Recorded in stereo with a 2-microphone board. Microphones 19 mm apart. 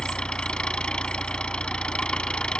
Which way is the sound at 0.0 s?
55° left (ahead or behind).